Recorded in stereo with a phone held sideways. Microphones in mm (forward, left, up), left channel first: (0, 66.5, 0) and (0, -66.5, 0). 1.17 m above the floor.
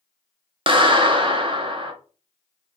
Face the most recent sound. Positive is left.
turn(degrees=-40)  # may be behind; listen again after turning